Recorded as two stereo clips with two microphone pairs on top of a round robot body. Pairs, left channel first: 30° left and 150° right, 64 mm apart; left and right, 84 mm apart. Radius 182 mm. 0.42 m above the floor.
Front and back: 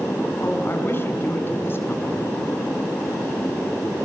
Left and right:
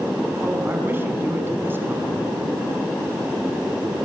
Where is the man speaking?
25° right, 5 m.